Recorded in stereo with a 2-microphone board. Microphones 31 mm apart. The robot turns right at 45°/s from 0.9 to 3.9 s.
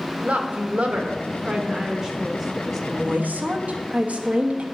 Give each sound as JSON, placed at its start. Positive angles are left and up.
{"t": 0.2, "sound": "a woman speaking", "azimuth_deg": -70, "distance_m": 1.1}
{"t": 2.9, "sound": "a woman speaking", "azimuth_deg": -100, "distance_m": 1.0}